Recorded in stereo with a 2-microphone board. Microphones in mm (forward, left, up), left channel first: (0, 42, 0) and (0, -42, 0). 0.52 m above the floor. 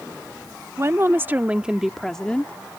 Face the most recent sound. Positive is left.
turn(degrees=25)  # may be behind; listen again after turning